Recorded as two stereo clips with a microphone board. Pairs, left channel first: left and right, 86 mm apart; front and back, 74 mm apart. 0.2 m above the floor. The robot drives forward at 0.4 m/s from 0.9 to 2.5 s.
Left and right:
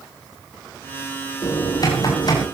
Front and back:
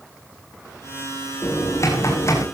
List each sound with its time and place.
1.4 s typing on a keyboard: 50° left, 8.5 m